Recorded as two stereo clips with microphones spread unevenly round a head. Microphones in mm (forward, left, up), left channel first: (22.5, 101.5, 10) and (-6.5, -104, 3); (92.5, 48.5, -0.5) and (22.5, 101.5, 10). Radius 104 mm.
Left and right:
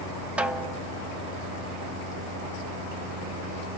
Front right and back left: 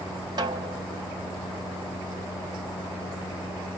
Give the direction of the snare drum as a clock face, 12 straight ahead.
6 o'clock.